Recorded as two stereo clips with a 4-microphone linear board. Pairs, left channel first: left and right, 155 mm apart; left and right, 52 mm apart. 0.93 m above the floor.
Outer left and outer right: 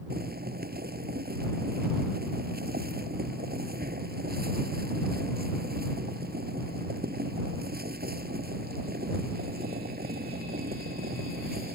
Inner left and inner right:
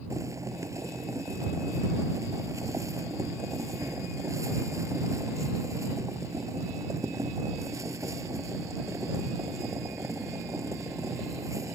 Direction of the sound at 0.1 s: 85° right.